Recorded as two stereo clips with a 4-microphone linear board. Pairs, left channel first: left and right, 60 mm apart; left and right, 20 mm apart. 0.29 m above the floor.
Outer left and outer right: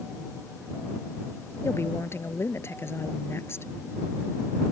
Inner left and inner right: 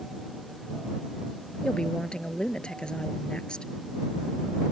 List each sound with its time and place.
1.6 s a woman speaking: 40° left (ahead or behind)